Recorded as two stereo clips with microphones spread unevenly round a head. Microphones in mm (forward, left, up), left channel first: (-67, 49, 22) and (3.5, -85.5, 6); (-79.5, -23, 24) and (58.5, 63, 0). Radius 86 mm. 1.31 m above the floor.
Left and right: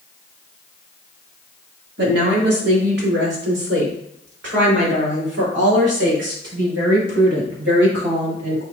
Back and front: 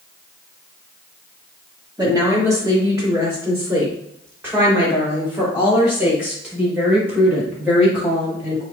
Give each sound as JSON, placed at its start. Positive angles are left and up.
{"t": 2.0, "sound": "a woman speaking", "azimuth_deg": -40, "distance_m": 3.0}